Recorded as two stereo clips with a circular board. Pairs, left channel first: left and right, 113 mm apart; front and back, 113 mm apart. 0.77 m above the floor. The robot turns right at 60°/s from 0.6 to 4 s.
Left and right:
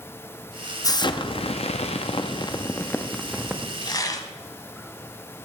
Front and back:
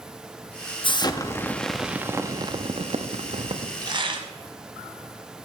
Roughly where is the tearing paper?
Behind left.